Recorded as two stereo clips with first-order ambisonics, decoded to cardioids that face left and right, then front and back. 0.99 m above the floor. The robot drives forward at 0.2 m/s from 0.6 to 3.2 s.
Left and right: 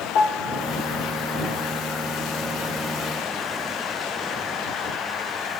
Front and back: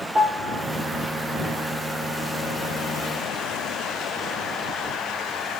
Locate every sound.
0.1 s a piano: 115° left, 0.8 m